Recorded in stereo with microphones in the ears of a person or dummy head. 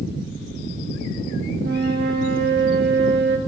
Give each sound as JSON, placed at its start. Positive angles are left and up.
{"t": 1.6, "sound": "a flute", "side_deg": -55, "distance_m": 1.1}